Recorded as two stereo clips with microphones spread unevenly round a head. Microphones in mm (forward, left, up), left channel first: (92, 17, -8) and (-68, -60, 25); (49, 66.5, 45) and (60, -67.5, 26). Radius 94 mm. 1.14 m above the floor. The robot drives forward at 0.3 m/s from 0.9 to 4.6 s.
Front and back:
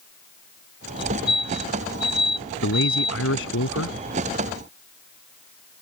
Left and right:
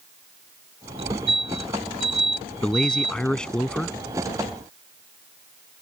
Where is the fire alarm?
40° right.